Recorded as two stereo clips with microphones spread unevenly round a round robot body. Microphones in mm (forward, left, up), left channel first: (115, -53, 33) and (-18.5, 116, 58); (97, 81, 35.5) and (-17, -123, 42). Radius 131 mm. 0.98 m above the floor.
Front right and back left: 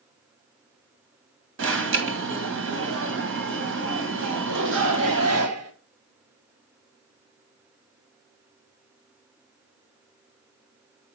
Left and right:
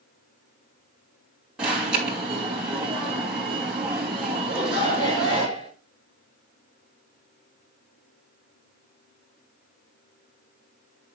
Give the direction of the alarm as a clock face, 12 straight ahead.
7 o'clock.